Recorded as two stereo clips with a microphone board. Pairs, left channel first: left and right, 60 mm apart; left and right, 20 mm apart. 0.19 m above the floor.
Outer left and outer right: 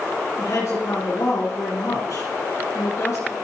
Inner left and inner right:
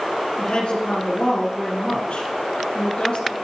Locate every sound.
0.4 s a woman speaking: 50° left (ahead or behind), 2 m